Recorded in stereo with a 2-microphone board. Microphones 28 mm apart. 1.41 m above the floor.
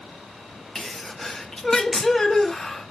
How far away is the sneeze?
About 0.7 m.